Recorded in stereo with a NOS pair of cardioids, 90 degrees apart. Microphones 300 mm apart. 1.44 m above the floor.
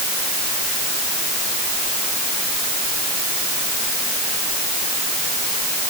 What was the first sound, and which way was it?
Only background noise.